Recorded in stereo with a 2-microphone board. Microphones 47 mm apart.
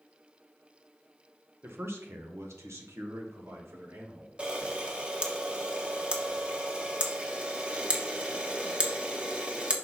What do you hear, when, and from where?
1.6 s a man speaking: 60° right (ahead or behind), 1.4 m; by 4.3 s 75° right (ahead or behind), 2 m
4.4 s a camera shutter: 20° right (ahead or behind), 1.2 m